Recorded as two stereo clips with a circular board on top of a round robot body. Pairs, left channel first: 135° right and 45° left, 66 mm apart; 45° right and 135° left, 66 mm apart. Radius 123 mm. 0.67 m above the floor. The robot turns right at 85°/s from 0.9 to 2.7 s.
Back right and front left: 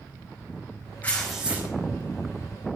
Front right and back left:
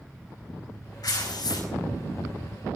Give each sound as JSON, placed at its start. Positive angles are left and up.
{"t": 1.0, "sound": "tearing paper", "azimuth_deg": -70, "distance_m": 5.0}